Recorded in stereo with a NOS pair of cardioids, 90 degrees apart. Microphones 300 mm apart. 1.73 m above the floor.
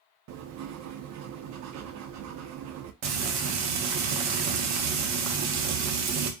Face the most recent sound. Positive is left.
turn(degrees=-60)